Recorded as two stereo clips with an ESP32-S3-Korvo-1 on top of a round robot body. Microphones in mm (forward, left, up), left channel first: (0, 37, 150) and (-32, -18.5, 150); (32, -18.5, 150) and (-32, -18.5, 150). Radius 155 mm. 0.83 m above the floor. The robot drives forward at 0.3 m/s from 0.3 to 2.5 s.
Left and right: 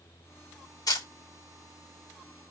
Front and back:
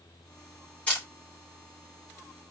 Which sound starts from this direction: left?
A camera shutter, at 0.9 s.